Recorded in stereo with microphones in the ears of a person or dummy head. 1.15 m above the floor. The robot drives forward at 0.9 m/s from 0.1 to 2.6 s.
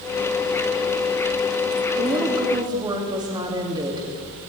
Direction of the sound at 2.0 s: 30° right (ahead or behind).